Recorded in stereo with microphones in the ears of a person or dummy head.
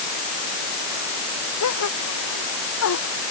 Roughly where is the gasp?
Left.